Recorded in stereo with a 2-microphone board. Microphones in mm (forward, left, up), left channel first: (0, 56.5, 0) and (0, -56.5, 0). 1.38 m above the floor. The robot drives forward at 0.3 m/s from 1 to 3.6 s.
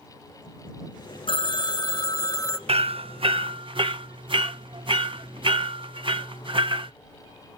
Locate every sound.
1.3 s a phone ringing: 50° left (ahead or behind), 0.6 m; by 2.6 s 30° left (ahead or behind), 0.9 m
2.7 s hammering: 60° right (ahead or behind), 0.6 m; by 6.9 s 50° right (ahead or behind), 0.7 m